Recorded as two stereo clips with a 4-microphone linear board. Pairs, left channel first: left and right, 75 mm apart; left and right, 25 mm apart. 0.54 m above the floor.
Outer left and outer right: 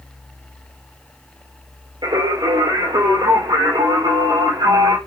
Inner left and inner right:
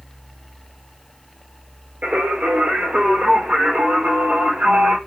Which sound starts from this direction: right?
Singing, at 2.0 s.